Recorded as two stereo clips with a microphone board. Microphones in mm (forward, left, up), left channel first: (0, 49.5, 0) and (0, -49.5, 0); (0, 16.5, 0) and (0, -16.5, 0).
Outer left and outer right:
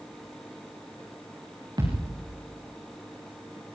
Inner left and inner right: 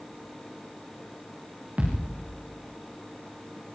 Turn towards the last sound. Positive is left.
turn(degrees=-45)  # may be behind; listen again after turning